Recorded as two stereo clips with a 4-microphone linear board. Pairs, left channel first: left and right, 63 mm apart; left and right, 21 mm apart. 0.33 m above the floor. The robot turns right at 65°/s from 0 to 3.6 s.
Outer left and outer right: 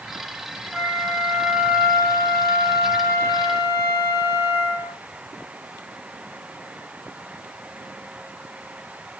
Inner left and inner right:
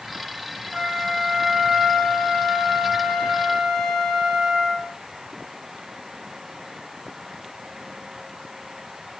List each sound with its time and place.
0.7 s a flute: 145° left, 4 m; by 5.0 s 25° right, 4 m